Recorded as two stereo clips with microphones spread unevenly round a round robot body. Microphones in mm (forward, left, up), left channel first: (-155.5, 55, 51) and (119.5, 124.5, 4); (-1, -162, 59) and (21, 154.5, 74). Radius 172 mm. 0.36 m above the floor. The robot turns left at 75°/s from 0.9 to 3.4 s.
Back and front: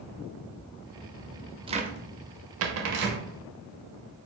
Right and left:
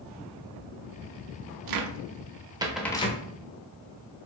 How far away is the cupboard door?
About 0.5 m.